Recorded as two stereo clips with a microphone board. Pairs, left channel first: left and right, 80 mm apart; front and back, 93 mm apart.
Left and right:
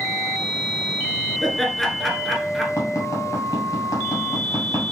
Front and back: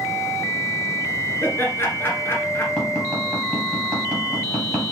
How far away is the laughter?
About 1.2 m.